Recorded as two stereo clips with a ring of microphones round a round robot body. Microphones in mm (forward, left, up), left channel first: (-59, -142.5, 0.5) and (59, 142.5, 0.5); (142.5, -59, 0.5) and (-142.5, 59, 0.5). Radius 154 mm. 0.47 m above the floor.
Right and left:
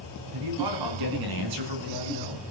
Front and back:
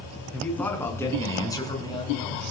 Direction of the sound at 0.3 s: 65° left.